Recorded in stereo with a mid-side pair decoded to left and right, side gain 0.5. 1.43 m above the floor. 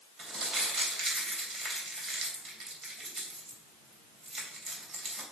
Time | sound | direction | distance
0.2 | crumpling | 50° right | 3.5 m